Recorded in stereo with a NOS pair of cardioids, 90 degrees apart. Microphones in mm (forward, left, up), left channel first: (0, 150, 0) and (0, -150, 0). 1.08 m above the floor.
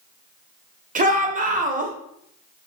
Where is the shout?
25° right, 0.9 m.